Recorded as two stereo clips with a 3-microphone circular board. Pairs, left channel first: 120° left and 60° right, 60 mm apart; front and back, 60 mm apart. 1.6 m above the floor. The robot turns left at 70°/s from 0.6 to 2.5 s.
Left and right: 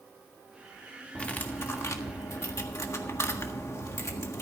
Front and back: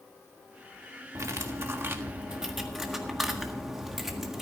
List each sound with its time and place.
1.1 s cutlery clinking: 170° right, 1.5 m; by 4.4 s 95° left, 1.5 m